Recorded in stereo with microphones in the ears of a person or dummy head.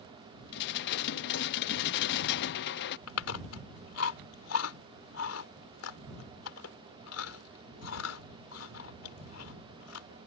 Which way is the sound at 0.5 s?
60° left (ahead or behind).